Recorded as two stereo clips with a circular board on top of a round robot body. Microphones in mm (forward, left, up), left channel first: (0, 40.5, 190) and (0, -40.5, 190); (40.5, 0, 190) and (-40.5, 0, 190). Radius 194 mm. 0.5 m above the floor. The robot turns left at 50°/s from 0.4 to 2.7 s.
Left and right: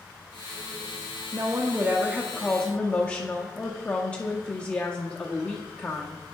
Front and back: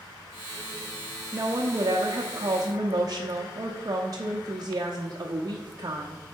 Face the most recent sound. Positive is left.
turn(degrees=155)